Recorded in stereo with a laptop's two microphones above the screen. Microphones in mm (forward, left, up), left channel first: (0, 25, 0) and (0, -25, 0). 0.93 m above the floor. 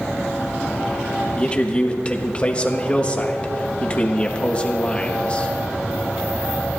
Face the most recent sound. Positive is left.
turn(degrees=25)  # may be behind; listen again after turning